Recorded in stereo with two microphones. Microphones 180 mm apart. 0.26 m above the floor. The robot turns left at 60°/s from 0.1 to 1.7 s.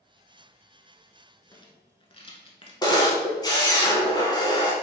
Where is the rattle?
20° left (ahead or behind), 0.9 m; by 2.7 s 30° left (ahead or behind), 0.9 m.